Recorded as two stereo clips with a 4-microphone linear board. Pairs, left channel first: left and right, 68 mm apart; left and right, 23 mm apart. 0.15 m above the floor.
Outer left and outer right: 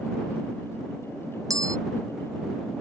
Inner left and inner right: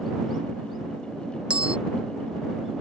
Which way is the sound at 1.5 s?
60° right (ahead or behind).